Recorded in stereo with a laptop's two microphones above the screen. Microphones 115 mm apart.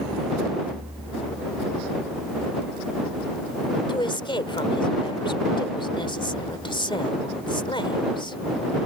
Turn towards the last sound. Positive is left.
turn(degrees=45)  # may be behind; listen again after turning